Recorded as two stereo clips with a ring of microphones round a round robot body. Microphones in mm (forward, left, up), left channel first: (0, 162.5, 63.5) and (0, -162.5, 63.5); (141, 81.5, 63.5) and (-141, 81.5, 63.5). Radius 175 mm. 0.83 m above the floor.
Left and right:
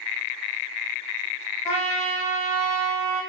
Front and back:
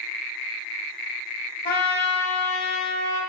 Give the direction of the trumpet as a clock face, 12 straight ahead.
10 o'clock.